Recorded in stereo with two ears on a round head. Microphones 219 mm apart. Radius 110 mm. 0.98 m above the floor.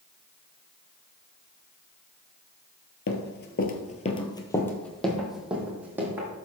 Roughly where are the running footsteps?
Left.